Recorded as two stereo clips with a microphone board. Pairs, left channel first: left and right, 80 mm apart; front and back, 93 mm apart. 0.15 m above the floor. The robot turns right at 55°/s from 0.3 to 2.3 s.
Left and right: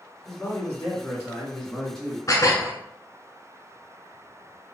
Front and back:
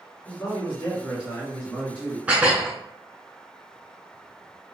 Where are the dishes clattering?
110° left, 1.0 m.